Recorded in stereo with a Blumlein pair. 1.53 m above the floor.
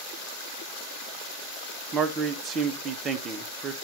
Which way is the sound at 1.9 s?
25° right.